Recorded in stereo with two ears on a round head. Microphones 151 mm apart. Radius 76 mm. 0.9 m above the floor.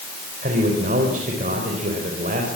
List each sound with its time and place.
0.4 s a man speaking: 45° right (ahead or behind), 4 m